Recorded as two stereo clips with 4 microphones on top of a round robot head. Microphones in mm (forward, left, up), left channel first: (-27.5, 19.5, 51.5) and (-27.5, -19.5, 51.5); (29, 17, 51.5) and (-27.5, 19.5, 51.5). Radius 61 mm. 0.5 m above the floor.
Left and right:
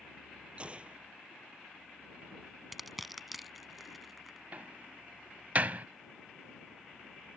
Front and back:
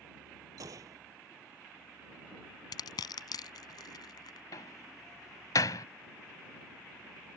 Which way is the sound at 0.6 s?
150° right.